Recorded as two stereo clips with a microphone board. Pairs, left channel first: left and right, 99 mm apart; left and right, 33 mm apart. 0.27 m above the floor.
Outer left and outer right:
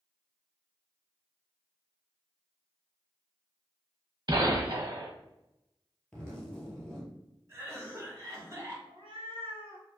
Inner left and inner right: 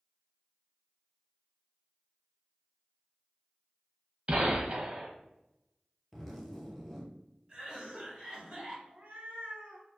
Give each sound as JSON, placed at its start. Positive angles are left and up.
{"t": 4.3, "sound": "a gunshot", "side_deg": -45, "distance_m": 0.6}
{"t": 6.1, "sound": "a zipper", "side_deg": 10, "distance_m": 0.9}
{"t": 7.5, "sound": "a cough", "side_deg": -30, "distance_m": 1.2}
{"t": 8.9, "sound": "a cat meowing", "side_deg": -70, "distance_m": 0.9}